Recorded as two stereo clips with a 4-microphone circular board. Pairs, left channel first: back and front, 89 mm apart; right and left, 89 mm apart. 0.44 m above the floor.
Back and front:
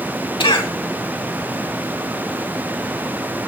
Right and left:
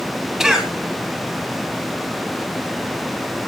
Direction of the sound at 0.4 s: 175° left.